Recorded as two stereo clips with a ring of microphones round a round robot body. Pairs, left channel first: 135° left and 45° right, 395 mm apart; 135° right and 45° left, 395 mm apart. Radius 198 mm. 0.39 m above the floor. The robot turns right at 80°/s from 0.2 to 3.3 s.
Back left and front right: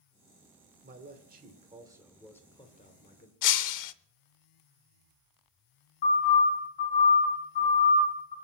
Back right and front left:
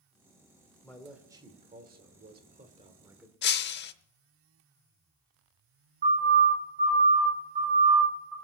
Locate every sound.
0.8 s a man speaking: 65° right, 1.5 m; by 3.3 s 135° left, 1.5 m
3.4 s breaking glass: 165° left, 0.6 m
6.0 s a siren: 110° left, 6.5 m; by 8.3 s 130° left, 4.5 m